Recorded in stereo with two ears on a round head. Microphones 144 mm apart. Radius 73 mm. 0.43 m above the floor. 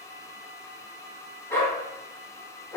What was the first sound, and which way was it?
A dog barking, 15° left (ahead or behind).